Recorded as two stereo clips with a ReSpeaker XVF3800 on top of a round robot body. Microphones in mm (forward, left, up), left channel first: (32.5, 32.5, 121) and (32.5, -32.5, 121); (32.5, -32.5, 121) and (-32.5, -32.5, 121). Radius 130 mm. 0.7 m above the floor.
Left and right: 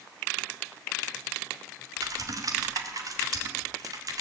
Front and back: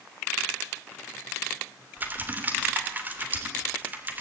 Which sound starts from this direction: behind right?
Typing on a keyboard, at 2.0 s.